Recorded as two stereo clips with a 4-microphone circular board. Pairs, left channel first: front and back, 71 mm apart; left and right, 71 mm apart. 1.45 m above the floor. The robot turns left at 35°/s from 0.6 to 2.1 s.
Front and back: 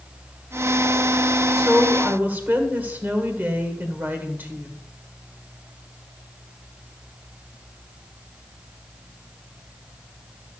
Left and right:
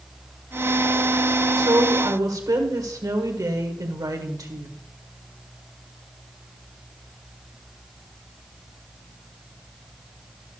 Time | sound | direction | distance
1.6 | a woman speaking | 100° right | 1.7 m